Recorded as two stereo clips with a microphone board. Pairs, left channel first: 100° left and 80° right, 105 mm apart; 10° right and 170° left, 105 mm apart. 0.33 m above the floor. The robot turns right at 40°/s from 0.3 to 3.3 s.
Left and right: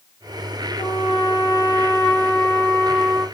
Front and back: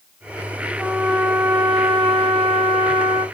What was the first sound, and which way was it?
A trumpet, 95° left.